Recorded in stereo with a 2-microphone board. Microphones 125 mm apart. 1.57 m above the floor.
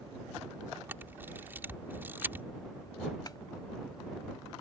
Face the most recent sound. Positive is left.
turn(degrees=35)  # may be behind; listen again after turning